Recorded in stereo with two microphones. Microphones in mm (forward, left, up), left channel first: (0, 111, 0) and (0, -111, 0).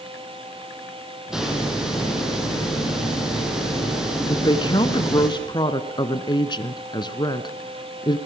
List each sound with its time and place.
1.3 s a hiss: centre (ahead or behind), 4.5 m
4.3 s a woman speaking: 20° left (ahead or behind), 1.1 m